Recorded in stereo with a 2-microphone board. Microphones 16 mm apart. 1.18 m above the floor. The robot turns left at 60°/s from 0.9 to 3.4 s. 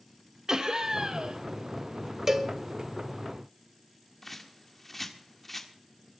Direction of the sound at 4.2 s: 10° left (ahead or behind).